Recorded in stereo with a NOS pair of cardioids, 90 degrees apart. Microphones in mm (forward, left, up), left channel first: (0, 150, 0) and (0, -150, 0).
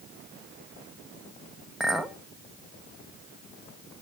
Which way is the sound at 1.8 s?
Straight ahead.